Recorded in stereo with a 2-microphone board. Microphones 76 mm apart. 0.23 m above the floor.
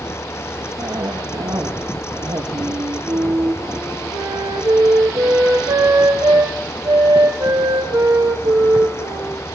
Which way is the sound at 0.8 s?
75° right (ahead or behind).